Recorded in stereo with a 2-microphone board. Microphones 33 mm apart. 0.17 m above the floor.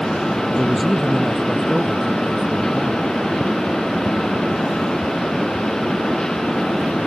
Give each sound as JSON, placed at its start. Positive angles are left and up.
{"t": 0.6, "sound": "a man speaking", "side_deg": 5}